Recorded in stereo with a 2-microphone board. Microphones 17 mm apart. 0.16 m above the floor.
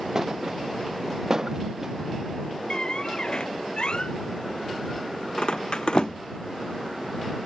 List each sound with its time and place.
0.1 s a thud: 30° right (ahead or behind)
2.7 s a squeak: 60° left (ahead or behind)